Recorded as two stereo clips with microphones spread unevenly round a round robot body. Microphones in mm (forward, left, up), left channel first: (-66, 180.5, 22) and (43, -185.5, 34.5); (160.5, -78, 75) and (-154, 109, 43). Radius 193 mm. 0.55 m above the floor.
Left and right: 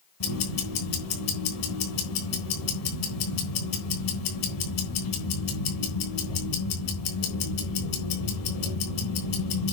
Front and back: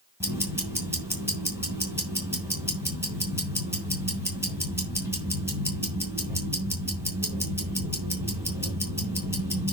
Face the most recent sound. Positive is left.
turn(degrees=65)